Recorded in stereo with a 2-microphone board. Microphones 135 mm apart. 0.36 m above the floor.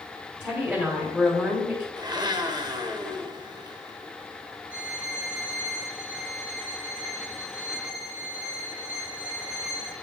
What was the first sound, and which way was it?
A woman speaking, 10° right (ahead or behind).